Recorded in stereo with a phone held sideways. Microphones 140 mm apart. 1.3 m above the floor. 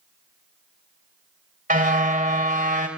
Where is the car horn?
75° right (ahead or behind), 3.5 m.